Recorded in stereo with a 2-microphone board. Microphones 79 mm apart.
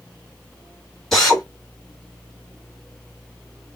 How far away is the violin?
I don't hear a violin.